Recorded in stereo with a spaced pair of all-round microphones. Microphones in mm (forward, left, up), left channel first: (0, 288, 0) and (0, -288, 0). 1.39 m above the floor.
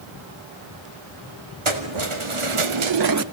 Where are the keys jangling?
55° right (ahead or behind), 2.5 m; by 3.2 s 25° right (ahead or behind), 0.6 m.